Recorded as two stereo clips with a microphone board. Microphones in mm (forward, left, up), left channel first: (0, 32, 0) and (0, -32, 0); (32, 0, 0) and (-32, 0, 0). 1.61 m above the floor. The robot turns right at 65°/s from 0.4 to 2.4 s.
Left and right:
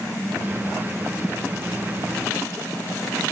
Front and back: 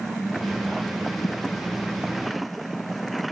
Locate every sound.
1.2 s a thud: 15° right; by 1.4 s straight ahead